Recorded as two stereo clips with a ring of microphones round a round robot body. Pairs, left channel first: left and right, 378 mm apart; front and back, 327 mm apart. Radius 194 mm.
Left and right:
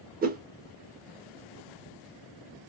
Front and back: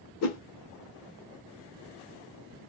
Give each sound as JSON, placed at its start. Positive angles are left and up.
{"t": 0.2, "sound": "a whoosh", "azimuth_deg": -25, "distance_m": 0.5}